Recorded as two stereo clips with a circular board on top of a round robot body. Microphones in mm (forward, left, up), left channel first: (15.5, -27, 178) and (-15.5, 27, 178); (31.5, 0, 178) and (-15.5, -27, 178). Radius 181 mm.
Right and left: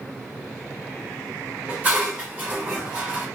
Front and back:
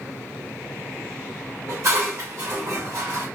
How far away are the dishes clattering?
About 1.1 m.